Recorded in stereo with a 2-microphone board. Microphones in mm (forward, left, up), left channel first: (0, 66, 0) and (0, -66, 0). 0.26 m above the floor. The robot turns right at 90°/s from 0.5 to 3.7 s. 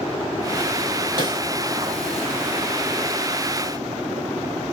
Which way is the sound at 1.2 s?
35° right (ahead or behind).